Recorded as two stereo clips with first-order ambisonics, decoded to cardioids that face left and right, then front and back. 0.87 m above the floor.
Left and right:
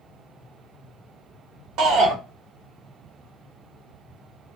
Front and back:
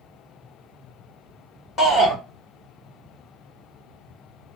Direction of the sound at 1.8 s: 60° right.